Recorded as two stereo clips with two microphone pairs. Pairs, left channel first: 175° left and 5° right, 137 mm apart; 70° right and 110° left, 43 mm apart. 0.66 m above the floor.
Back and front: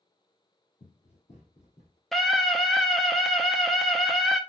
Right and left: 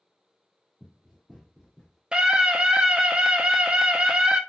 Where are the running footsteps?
160° right, 1.4 m; by 2.0 s 155° right, 2 m.